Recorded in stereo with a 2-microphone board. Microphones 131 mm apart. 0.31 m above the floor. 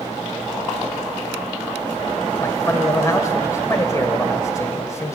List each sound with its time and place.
2.4 s a man speaking: 25° left (ahead or behind), 1.1 m